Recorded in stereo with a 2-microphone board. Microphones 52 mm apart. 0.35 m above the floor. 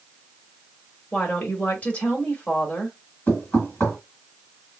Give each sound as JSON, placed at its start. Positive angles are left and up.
{"t": 1.1, "sound": "a woman speaking", "side_deg": 25, "distance_m": 1.3}
{"t": 3.3, "sound": "knocking", "side_deg": 30, "distance_m": 2.0}